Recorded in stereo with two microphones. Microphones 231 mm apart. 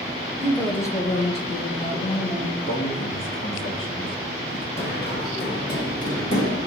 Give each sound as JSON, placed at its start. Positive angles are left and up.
{"t": 0.4, "sound": "a woman speaking", "side_deg": -15, "distance_m": 0.7}
{"t": 2.6, "sound": "a man speaking", "side_deg": 60, "distance_m": 1.0}
{"t": 4.8, "sound": "running footsteps", "side_deg": 45, "distance_m": 1.9}